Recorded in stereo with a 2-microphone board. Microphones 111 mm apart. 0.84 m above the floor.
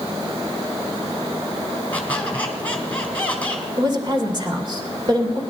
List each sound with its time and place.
1.9 s a squeak: 10° left (ahead or behind), 2.5 m
3.8 s a woman speaking: 40° right (ahead or behind), 2.5 m